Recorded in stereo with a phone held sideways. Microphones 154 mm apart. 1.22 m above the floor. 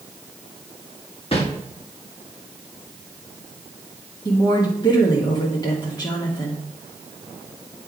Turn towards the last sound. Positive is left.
turn(degrees=30)  # may be behind; listen again after turning